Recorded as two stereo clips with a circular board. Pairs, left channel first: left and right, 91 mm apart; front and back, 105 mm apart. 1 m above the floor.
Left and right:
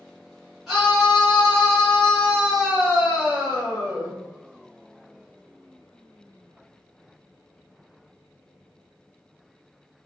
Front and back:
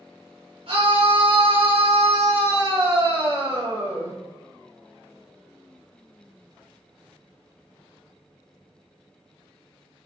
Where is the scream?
175° right, 1.2 m.